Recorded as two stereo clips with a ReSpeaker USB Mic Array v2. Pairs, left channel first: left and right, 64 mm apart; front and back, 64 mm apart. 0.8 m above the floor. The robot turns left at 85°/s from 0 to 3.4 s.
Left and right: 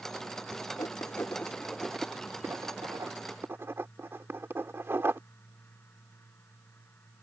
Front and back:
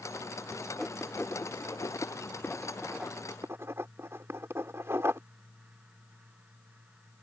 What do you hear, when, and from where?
0.8 s writing: 90° left; by 5.2 s 135° right